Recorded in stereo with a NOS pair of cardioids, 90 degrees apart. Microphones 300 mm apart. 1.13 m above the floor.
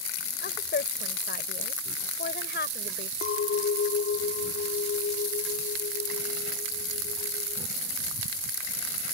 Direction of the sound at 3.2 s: 50° left.